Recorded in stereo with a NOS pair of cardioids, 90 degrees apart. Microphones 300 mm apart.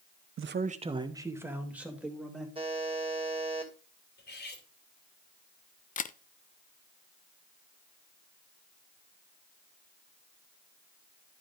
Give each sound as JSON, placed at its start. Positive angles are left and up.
{"t": 0.4, "sound": "a man speaking", "azimuth_deg": -45, "distance_m": 0.6}
{"t": 2.5, "sound": "a buzzer", "azimuth_deg": -15, "distance_m": 2.5}
{"t": 4.2, "sound": "cutlery clinking", "azimuth_deg": 35, "distance_m": 2.5}
{"t": 6.0, "sound": "a camera shutter", "azimuth_deg": 25, "distance_m": 0.5}